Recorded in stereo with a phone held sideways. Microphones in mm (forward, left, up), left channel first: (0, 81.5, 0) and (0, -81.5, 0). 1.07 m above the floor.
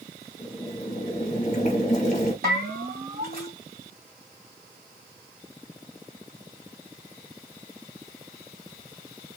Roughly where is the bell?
Right.